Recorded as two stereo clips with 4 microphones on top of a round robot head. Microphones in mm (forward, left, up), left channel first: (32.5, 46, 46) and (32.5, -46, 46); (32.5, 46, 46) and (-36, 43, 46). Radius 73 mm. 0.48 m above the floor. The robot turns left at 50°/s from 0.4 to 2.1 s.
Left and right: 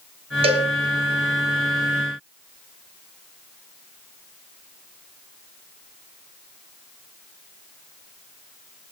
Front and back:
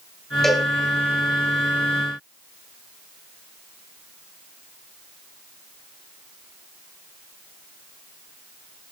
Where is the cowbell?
85° right, 4 m; by 0.7 s 100° right, 4 m.